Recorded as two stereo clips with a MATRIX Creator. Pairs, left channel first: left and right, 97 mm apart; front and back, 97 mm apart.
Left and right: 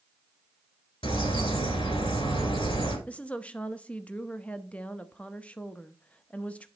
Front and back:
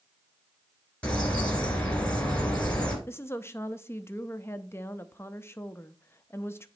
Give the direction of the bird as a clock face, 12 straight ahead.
9 o'clock.